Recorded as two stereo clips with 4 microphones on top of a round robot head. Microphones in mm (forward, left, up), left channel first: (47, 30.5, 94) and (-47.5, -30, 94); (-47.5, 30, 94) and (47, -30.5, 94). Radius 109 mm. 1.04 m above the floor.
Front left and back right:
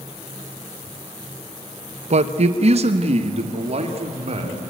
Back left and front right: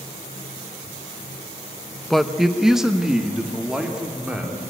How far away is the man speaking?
About 0.9 m.